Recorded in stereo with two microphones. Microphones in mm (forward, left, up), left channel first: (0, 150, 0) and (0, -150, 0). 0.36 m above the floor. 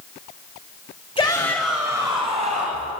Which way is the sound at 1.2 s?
20° left (ahead or behind).